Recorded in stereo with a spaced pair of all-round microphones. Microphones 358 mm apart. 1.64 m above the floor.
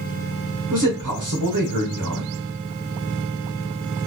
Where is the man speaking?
65° right (ahead or behind), 1.1 m.